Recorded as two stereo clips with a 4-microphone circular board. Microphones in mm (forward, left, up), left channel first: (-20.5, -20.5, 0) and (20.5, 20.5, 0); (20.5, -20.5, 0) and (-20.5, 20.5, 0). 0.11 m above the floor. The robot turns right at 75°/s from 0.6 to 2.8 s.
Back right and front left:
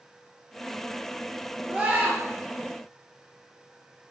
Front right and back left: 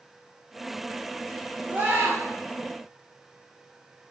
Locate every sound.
1.7 s a scream: 95° left, 2 m; by 2.2 s 130° left, 2 m